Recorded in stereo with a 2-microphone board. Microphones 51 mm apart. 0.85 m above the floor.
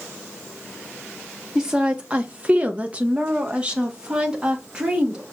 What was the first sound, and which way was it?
A woman speaking, 20° right (ahead or behind).